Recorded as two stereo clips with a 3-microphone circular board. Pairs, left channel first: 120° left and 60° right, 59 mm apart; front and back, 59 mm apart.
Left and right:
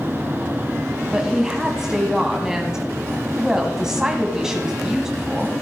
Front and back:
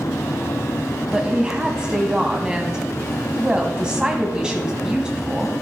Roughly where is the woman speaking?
Behind right.